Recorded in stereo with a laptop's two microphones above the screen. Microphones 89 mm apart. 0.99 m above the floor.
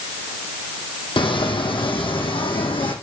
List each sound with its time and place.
1.2 s footsteps: 65° left (ahead or behind), 2 m; by 2.9 s 70° left (ahead or behind), 3 m